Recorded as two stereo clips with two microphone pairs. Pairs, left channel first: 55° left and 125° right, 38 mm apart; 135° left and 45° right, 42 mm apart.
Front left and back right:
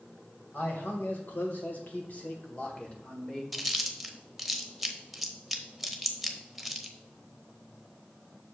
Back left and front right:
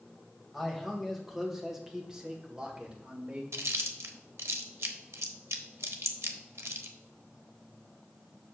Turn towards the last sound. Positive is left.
turn(degrees=-40)